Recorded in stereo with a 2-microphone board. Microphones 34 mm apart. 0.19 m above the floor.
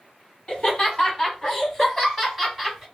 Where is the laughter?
30° left (ahead or behind), 1.7 m; by 2.9 s 10° right (ahead or behind), 1.6 m.